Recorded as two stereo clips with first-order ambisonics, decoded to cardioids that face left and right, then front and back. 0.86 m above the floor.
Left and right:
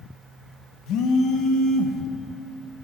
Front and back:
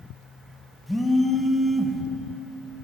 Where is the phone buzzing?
90° left, 1.3 m.